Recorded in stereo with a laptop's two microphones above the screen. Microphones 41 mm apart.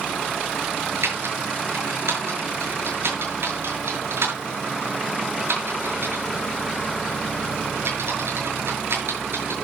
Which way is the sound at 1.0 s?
85° right.